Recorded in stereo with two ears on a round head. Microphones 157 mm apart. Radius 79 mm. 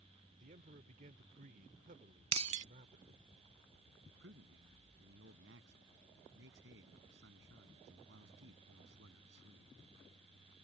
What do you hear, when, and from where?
0.4 s a man speaking: 45° right (ahead or behind)
2.3 s breaking glass: 40° right (ahead or behind)
4.1 s a man speaking: 75° right (ahead or behind)